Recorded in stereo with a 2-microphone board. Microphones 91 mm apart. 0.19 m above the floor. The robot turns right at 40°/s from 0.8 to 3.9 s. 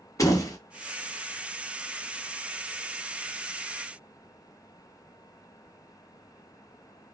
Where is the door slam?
35° left (ahead or behind), 0.8 m.